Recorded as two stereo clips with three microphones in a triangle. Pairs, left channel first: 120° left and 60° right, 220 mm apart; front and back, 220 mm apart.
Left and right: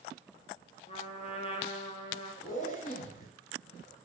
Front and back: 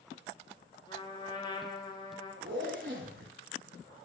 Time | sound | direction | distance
0.9 | a trumpet | 60° left | 0.6 m
2.4 | a zipper | 165° left | 0.7 m